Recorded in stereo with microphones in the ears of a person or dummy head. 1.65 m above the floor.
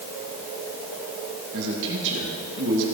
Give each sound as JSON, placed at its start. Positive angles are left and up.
{"t": 1.5, "sound": "a man speaking", "side_deg": -65, "distance_m": 3.5}